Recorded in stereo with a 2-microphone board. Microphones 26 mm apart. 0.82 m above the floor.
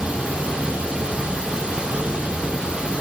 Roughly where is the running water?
Right.